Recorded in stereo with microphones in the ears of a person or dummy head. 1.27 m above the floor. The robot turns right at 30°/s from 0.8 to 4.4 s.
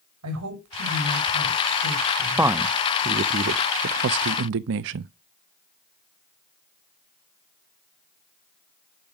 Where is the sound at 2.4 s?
10° right (ahead or behind), 0.6 m; by 5.1 s 65° right (ahead or behind), 0.6 m.